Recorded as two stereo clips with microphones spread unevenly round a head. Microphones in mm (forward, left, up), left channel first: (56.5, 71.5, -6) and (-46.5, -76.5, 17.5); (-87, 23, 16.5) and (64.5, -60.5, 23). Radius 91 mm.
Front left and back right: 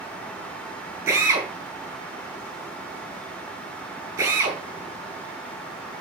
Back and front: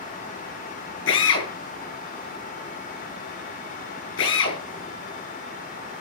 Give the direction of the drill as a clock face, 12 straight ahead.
7 o'clock.